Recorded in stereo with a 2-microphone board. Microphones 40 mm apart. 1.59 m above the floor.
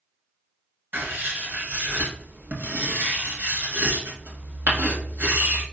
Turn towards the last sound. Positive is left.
turn(degrees=-50)  # may be behind; listen again after turning